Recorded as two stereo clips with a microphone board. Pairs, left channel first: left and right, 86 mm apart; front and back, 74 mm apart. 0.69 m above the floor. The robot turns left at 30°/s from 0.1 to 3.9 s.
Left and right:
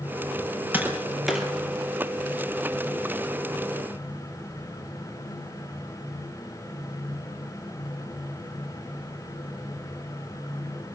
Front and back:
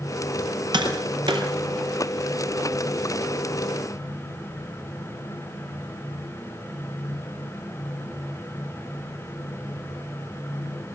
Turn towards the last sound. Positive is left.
turn(degrees=105)